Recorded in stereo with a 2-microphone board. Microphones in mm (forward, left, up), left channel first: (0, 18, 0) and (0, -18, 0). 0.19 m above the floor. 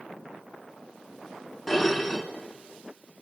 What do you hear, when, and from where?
1.7 s dishes clattering: 5° left (ahead or behind), 1.5 m